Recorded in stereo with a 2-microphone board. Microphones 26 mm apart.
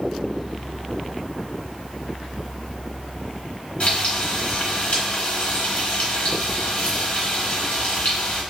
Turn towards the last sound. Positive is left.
turn(degrees=50)  # may be behind; listen again after turning